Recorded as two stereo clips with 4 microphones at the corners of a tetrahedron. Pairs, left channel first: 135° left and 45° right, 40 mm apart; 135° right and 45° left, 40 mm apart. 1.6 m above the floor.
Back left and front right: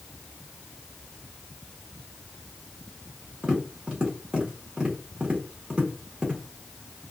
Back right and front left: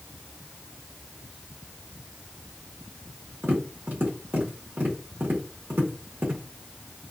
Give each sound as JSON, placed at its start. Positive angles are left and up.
{"t": 3.4, "sound": "tapping", "azimuth_deg": 15, "distance_m": 1.6}